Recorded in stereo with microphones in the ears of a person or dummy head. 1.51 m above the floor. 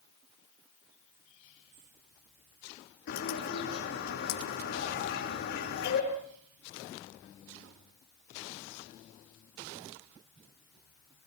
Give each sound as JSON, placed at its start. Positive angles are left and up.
{"t": 3.1, "sound": "a bird", "side_deg": 60, "distance_m": 7.0}